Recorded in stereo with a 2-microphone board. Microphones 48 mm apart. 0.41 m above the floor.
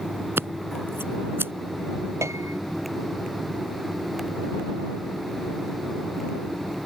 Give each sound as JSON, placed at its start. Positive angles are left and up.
{"t": 0.4, "sound": "scissors", "side_deg": -55}
{"t": 2.2, "sound": "a piano", "side_deg": -85}